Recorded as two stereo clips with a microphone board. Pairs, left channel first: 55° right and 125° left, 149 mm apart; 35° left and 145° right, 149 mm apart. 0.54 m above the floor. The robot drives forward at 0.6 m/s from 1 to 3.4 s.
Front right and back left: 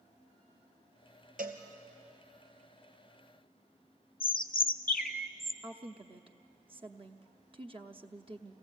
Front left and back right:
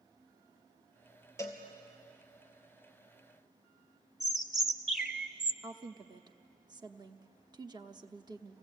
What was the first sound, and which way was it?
A cowbell, 105° left.